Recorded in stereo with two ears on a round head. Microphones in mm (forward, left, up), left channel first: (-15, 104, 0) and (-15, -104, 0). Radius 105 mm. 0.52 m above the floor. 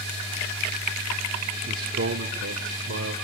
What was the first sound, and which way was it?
A man speaking, 35° right (ahead or behind).